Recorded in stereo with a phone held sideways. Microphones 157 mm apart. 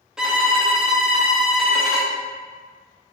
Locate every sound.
0.2 s a violin: 5° right (ahead or behind), 0.7 m